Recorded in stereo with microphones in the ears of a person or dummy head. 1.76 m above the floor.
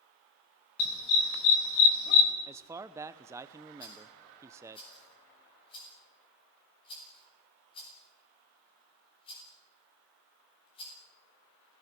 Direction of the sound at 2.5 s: 10° right (ahead or behind).